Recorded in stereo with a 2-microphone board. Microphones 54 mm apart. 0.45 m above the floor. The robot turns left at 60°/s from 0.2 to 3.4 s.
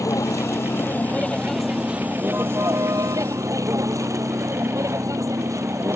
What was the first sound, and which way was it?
A vehicle, 85° left.